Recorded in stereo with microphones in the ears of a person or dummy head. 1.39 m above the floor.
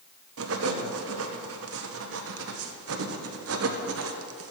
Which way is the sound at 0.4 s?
70° right (ahead or behind).